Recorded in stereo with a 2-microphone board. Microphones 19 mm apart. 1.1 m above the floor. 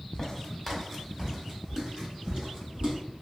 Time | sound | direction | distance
0.1 | footsteps | 25° left (ahead or behind) | 1.4 m